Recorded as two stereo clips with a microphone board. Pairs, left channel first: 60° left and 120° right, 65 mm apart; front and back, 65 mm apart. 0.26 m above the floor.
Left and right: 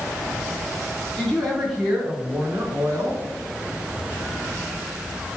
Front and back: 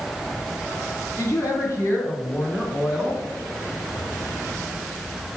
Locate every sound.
1.2 s a woman speaking: 15° right, 2.5 m; by 3.2 s 95° right, 2.5 m